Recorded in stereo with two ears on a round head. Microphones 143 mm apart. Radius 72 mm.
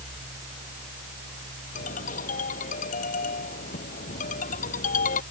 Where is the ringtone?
55° left (ahead or behind).